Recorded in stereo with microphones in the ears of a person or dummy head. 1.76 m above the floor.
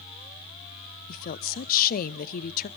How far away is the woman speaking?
About 0.6 m.